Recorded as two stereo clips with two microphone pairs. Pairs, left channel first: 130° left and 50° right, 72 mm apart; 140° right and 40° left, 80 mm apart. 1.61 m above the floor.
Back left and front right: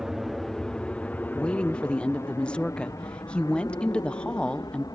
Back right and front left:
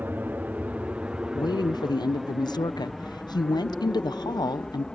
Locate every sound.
0.0 s an aircraft: 25° left; by 5.0 s 140° left
1.4 s a woman speaking: 155° right